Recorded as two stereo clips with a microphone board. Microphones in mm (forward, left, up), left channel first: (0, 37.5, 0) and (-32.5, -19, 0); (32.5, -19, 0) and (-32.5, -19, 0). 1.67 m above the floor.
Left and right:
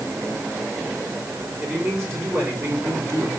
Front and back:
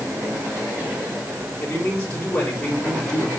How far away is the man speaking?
About 5 m.